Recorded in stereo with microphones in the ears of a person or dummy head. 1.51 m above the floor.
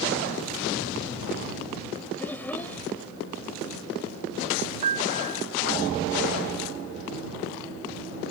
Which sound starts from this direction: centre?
A child speaking, at 2.2 s.